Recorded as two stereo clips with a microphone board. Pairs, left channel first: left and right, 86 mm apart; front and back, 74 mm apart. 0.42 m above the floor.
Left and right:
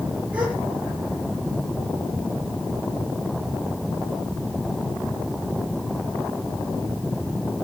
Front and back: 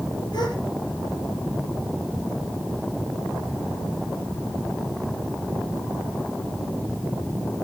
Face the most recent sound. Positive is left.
turn(degrees=-15)